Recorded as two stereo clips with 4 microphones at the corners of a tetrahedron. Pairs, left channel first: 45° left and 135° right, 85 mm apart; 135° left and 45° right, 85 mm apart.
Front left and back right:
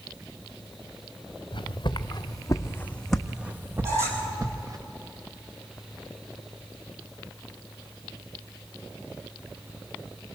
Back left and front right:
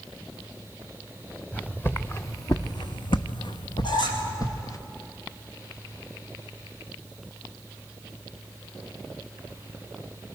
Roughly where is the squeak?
Behind.